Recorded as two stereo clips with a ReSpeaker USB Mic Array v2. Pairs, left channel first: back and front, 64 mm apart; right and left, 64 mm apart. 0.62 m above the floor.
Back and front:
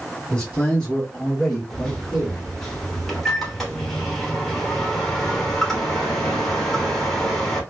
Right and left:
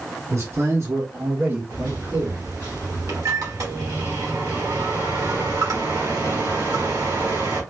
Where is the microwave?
90° left, 1.1 m.